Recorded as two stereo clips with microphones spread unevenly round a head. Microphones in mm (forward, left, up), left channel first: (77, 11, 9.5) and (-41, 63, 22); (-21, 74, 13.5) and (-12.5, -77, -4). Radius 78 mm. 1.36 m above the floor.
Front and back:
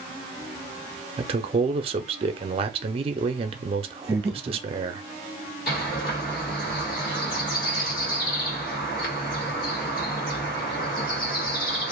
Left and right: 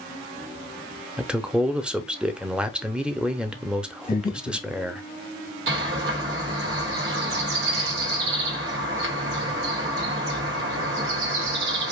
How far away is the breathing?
About 1.1 m.